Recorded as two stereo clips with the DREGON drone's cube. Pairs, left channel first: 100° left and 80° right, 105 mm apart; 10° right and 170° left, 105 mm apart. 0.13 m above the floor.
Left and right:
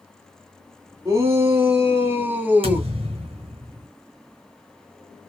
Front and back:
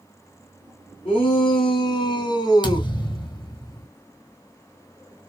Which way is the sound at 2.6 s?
55° right.